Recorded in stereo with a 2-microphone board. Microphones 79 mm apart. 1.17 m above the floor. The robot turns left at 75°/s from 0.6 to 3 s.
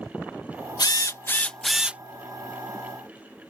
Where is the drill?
65° left; by 2.0 s 25° right.